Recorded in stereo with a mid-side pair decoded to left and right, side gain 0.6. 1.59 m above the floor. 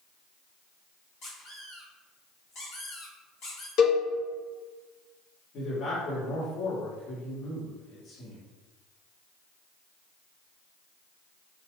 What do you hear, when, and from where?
1.2 s a squeak: 60° left, 1.8 m
3.8 s a cowbell: 65° left, 0.9 m
5.5 s a man speaking: 55° left, 1.7 m